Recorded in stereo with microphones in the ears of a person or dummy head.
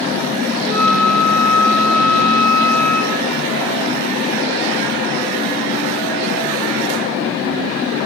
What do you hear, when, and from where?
0.6 s a flute: 45° right (ahead or behind), 1.5 m